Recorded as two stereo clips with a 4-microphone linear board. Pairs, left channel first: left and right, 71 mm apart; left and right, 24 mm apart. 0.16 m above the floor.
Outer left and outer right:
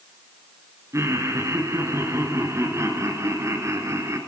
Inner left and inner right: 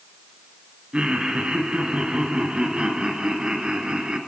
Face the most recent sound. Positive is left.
turn(degrees=-45)  # may be behind; listen again after turning